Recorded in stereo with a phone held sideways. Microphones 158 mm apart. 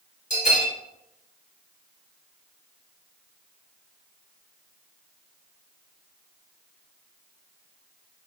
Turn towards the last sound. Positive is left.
turn(degrees=55)  # may be behind; listen again after turning